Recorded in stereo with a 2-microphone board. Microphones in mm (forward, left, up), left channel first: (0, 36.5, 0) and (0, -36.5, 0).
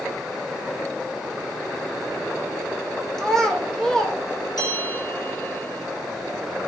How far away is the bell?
About 2.5 m.